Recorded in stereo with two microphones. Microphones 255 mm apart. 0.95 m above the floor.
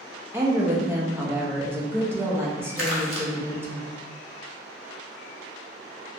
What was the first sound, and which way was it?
A woman speaking, 10° right (ahead or behind).